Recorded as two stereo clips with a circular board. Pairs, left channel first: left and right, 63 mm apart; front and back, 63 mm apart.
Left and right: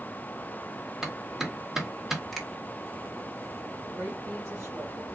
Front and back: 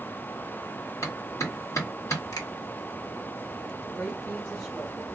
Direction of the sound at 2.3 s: Straight ahead.